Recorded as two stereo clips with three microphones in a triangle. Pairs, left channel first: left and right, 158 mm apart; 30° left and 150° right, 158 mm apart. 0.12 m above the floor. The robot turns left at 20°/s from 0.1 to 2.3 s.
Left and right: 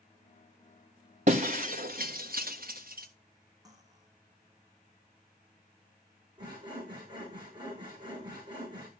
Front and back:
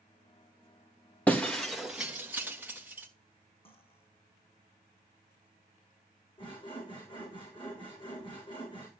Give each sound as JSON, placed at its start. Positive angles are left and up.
{"t": 1.3, "sound": "breaking glass", "azimuth_deg": -50, "distance_m": 1.4}
{"t": 3.6, "sound": "cutlery clinking", "azimuth_deg": -20, "distance_m": 4.5}
{"t": 6.4, "sound": "sawing", "azimuth_deg": -30, "distance_m": 6.0}